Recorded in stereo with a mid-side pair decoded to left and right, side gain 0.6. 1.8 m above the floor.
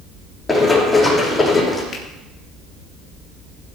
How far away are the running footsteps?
About 5.5 m.